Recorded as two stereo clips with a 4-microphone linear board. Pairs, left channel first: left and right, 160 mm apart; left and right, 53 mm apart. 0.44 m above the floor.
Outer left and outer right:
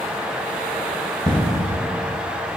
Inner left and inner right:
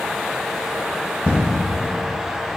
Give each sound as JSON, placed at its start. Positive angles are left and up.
{"t": 1.2, "sound": "an explosion", "side_deg": -35, "distance_m": 2.5}